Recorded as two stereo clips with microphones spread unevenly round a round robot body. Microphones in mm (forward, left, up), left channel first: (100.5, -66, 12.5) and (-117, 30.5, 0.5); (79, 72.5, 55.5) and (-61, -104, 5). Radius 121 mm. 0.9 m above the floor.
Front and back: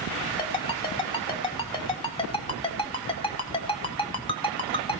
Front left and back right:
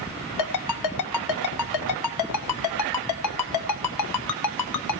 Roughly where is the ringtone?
Ahead left.